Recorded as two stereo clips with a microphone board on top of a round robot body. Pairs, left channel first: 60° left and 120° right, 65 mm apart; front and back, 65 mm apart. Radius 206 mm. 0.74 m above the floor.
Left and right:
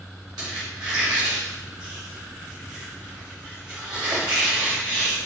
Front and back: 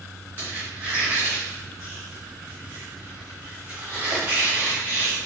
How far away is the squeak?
About 0.9 m.